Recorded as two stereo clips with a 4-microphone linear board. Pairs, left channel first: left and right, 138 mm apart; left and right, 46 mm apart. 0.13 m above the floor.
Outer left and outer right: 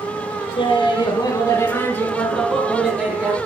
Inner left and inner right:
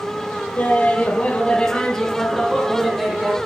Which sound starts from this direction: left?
Laughter, at 0.6 s.